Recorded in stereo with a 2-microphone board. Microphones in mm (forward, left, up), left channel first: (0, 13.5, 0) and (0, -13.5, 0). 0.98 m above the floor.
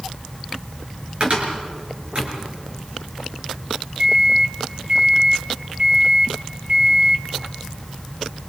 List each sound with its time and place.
1.2 s a cupboard door: 50° right (ahead or behind), 4.5 m
4.0 s a microwave: 55° right (ahead or behind), 1.8 m